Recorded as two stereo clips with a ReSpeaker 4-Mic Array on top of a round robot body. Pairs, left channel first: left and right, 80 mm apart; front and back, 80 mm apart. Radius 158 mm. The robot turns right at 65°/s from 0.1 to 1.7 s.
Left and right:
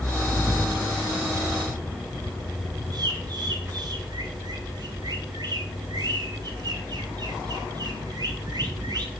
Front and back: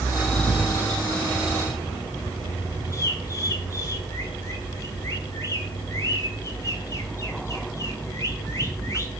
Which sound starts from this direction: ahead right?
A bird, at 2.9 s.